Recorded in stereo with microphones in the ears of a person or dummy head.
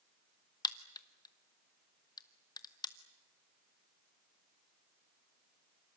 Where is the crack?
15° left (ahead or behind), 1.0 m.